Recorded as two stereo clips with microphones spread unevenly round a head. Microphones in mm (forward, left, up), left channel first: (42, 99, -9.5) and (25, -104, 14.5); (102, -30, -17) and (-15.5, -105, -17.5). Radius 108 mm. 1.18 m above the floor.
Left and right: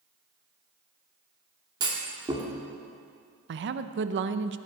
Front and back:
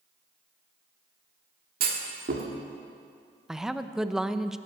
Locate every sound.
1.8 s a clunk: 165° right, 1.5 m
3.5 s a woman speaking: 60° right, 0.7 m